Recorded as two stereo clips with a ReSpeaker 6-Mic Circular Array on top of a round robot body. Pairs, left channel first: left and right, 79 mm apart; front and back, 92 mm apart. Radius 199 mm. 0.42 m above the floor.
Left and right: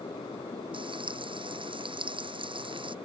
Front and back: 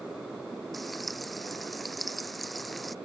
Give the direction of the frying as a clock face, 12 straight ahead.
3 o'clock.